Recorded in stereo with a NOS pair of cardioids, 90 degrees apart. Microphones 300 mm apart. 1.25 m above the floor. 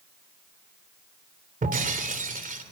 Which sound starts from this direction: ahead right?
Breaking glass, at 1.6 s.